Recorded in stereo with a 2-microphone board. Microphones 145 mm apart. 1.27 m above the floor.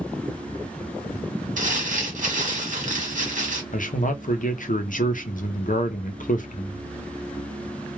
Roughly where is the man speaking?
Left.